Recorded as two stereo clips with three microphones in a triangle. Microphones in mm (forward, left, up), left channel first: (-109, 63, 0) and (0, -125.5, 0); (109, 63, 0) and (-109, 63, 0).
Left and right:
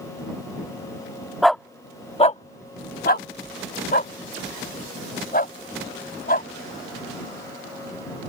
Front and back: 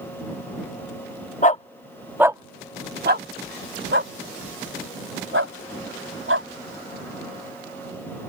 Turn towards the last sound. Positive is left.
turn(degrees=170)